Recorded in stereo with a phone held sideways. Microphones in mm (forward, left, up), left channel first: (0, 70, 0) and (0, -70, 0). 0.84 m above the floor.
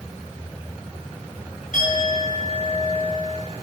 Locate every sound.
1.7 s a clink: 65° left (ahead or behind), 5.5 m